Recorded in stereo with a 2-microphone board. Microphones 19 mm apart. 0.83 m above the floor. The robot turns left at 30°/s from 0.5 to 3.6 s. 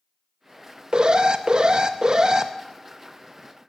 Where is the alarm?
85° right, 0.7 m; by 2.5 s 130° right, 0.7 m.